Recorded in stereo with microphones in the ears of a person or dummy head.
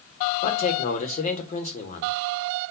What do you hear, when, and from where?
0.4 s a man speaking: 45° left (ahead or behind), 1.1 m